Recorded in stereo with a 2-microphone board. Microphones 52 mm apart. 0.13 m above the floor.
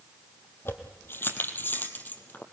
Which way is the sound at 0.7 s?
50° left (ahead or behind).